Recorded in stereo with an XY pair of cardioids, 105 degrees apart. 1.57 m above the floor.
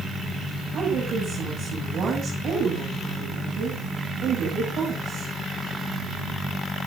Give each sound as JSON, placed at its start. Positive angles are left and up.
{"t": 0.7, "sound": "a woman speaking", "azimuth_deg": -65, "distance_m": 9.0}